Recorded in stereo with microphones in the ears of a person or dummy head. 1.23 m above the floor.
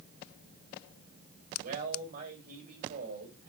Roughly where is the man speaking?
Right.